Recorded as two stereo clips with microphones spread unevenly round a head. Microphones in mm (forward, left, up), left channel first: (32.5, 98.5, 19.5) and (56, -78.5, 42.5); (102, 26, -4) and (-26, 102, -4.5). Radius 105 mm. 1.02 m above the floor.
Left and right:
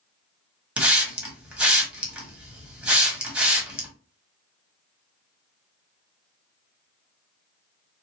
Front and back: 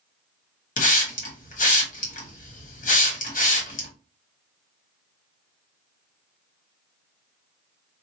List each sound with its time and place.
0.8 s a hiss: 5° left, 1.1 m